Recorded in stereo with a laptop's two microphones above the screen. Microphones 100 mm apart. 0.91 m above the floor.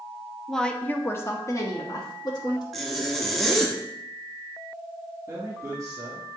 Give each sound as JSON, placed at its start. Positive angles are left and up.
{"t": 0.5, "sound": "a woman speaking", "side_deg": 0, "distance_m": 0.6}
{"t": 2.7, "sound": "a zipper", "side_deg": 0, "distance_m": 0.7}
{"t": 5.3, "sound": "a man speaking", "side_deg": -20, "distance_m": 2.0}